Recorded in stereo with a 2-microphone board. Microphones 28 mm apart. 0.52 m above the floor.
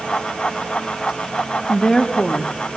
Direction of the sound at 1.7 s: 20° left (ahead or behind).